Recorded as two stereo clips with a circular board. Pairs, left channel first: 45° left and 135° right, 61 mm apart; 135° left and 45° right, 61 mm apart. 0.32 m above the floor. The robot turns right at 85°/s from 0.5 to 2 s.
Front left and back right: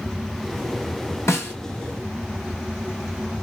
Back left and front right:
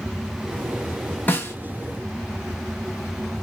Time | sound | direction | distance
1.3 | a snare drum | 80° left | 1.2 m